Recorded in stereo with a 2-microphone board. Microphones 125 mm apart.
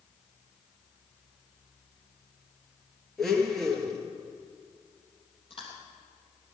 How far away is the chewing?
About 3 m.